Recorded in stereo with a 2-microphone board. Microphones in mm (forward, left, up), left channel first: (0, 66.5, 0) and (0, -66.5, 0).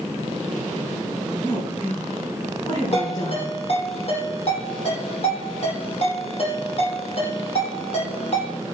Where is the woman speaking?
45° left (ahead or behind), 5 m.